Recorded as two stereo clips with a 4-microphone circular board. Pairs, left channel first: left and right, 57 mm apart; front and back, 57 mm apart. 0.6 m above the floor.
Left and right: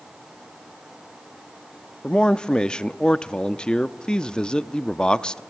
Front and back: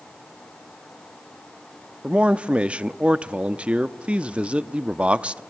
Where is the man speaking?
145° left, 0.6 m.